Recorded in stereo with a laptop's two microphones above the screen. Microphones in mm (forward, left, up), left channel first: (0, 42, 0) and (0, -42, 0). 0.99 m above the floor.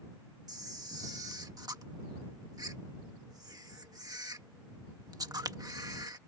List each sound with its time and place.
0.5 s a camera shutter: 50° right (ahead or behind)